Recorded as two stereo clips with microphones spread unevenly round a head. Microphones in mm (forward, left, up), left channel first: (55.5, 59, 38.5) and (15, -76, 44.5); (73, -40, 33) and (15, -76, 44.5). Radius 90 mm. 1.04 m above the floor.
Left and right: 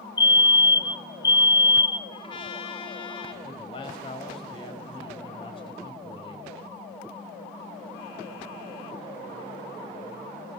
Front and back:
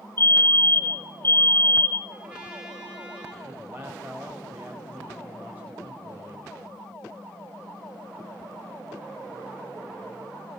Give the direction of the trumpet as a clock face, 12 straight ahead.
8 o'clock.